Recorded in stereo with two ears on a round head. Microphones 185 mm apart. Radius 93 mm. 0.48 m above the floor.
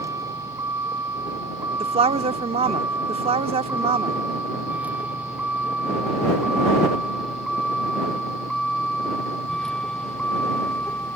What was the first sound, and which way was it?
A vehicle, 15° right (ahead or behind).